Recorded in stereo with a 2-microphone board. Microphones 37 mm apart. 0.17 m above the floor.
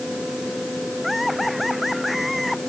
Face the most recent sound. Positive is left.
turn(degrees=0)  # may be behind; listen again after turning